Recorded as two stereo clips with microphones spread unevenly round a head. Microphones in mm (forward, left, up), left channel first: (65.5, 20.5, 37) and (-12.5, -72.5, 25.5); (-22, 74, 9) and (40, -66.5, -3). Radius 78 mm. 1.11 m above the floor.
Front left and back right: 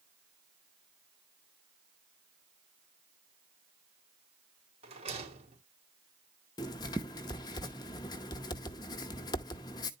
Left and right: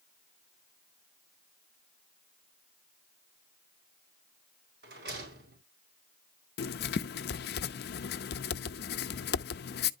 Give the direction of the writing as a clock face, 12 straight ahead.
8 o'clock.